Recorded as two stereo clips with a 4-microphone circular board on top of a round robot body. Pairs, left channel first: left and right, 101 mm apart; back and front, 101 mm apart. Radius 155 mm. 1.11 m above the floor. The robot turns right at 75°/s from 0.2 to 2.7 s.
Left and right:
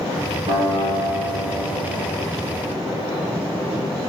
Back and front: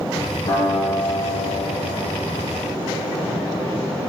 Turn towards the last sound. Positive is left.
turn(degrees=40)